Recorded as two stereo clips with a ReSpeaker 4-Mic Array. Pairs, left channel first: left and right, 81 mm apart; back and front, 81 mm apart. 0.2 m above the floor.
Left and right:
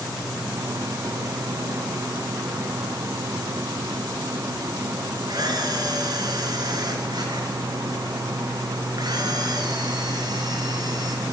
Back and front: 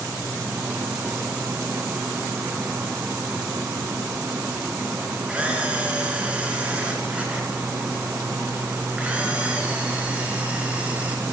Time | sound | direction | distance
5.3 | a camera shutter | 75° right | 2.5 m